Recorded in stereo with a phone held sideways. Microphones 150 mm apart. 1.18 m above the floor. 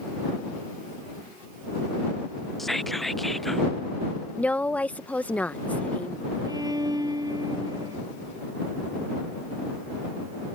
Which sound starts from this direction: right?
A violin, at 6.5 s.